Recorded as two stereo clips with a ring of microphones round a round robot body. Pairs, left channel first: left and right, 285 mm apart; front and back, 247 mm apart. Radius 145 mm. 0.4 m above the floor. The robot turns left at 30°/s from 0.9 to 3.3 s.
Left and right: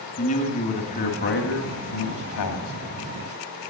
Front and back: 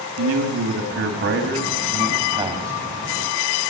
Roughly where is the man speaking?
Behind left.